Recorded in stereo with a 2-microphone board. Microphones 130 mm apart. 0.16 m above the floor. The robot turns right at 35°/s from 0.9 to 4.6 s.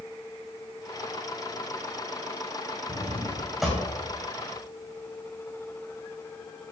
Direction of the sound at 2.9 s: 30° right (ahead or behind).